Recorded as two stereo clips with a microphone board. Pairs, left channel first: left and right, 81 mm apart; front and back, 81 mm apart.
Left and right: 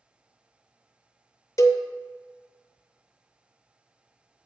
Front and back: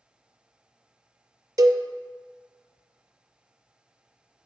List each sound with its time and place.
1.6 s a cowbell: 135° left, 0.6 m